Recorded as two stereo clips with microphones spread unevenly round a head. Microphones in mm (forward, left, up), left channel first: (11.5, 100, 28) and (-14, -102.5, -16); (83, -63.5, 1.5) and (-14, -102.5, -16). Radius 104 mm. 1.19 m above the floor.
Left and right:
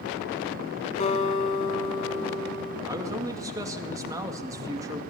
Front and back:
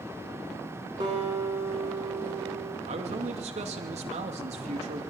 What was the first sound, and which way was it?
A guitar, 135° left.